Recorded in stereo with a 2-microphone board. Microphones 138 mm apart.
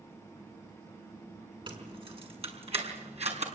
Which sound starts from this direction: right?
Keys jangling, at 1.7 s.